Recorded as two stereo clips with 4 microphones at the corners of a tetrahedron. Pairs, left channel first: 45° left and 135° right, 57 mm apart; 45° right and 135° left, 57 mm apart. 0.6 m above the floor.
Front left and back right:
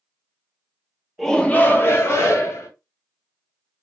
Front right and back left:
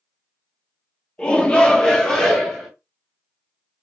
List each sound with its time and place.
1.2 s a shout: 35° right, 0.8 m; by 2.7 s 40° left, 1.8 m